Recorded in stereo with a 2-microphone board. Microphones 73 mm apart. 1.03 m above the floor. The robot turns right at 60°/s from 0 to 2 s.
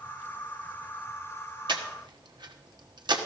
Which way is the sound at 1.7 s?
85° right.